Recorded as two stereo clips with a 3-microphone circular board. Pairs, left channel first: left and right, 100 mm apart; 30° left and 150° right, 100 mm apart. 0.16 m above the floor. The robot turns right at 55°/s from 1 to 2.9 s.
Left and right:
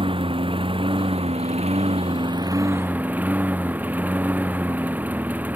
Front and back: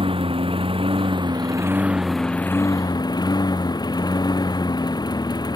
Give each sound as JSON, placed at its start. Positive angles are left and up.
{"t": 0.0, "sound": "a lawn mower", "azimuth_deg": -120}